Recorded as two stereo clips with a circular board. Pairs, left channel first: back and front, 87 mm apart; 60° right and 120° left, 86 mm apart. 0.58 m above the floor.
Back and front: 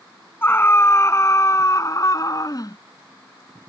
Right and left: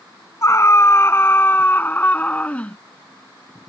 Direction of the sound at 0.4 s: 115° right.